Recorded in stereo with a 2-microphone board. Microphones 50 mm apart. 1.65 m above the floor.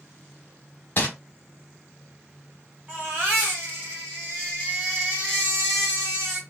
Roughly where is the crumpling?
Left.